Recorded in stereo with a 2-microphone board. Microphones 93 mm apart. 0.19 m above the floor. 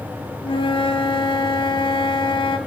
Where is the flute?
75° left (ahead or behind), 0.9 m.